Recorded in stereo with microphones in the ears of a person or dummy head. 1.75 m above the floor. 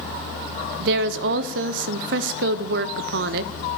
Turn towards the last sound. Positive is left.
turn(degrees=-60)  # may be behind; listen again after turning